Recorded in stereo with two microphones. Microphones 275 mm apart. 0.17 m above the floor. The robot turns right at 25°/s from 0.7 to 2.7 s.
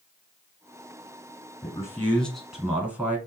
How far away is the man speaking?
About 1.3 m.